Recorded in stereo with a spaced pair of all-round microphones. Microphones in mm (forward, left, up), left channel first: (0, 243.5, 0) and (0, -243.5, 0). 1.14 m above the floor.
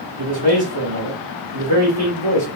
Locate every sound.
0.2 s a man speaking: 60° right (ahead or behind), 2.5 m